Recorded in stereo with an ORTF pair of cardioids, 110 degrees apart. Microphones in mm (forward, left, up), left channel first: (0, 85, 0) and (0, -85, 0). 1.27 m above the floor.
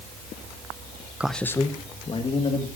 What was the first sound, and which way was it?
A man speaking, 5° right.